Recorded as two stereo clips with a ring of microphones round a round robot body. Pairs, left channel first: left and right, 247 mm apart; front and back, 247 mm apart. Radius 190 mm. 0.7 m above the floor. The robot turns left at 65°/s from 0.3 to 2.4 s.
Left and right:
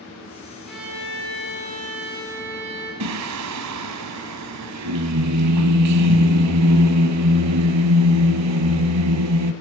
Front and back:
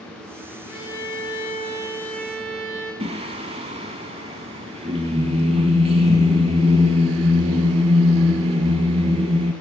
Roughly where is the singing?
Right.